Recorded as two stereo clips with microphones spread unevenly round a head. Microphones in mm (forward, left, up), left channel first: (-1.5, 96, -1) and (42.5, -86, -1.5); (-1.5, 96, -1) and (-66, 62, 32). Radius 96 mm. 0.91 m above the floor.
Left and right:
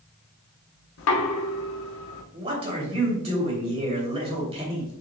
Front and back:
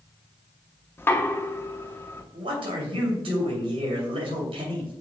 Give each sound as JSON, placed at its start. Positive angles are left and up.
{"t": 1.0, "sound": "knocking", "azimuth_deg": 90, "distance_m": 1.1}
{"t": 2.3, "sound": "a man speaking", "azimuth_deg": -140, "distance_m": 2.5}